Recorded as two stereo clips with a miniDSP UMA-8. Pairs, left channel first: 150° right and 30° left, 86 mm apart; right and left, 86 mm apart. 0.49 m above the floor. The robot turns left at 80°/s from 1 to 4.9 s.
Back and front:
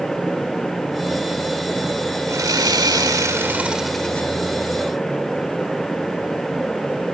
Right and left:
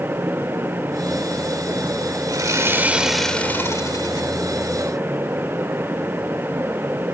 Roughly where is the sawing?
Left.